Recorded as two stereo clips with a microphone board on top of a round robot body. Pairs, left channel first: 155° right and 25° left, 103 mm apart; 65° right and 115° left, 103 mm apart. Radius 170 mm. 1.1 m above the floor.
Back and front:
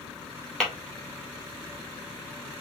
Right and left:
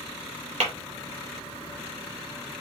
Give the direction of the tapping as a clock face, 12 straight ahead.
8 o'clock.